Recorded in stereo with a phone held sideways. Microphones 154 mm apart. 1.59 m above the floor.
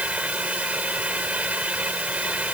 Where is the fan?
10° right (ahead or behind).